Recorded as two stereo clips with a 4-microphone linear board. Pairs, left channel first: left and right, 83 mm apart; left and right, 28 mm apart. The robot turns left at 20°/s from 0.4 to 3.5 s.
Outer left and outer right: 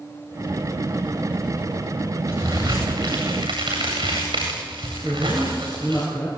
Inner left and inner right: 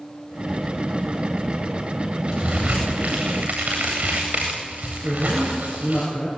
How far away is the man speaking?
About 6 m.